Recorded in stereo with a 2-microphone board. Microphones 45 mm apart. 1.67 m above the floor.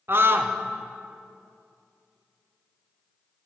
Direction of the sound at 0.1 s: 55° right (ahead or behind).